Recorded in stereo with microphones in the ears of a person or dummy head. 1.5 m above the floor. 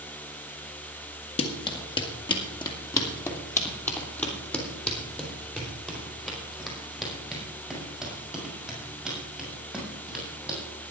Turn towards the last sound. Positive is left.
turn(degrees=0)  # may be behind; listen again after turning